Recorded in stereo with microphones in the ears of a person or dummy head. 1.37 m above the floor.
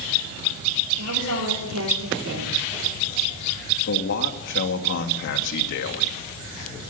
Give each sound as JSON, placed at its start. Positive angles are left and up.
{"t": 1.0, "sound": "a woman speaking", "side_deg": -80, "distance_m": 4.0}
{"t": 3.9, "sound": "a man speaking", "side_deg": 60, "distance_m": 2.5}